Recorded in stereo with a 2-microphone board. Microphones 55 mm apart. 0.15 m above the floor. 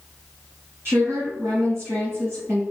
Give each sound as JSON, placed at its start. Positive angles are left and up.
{"t": 0.8, "sound": "a woman speaking", "side_deg": -50, "distance_m": 1.6}